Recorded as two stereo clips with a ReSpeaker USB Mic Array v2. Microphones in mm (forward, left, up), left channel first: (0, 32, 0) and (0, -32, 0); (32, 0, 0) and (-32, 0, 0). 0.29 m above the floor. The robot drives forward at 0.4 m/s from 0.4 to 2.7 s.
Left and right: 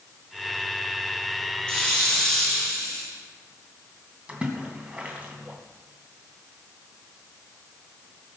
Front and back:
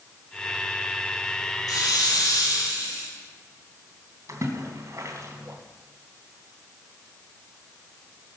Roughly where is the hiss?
Ahead.